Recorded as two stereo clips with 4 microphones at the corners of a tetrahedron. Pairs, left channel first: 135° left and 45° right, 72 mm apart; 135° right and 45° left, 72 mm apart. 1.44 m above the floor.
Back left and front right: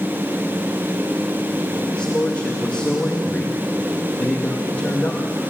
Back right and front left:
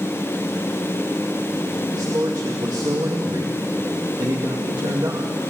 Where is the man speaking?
65° left, 2.0 m.